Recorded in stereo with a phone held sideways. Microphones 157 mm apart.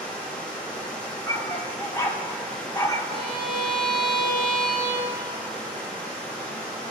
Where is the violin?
30° right (ahead or behind), 1.8 m.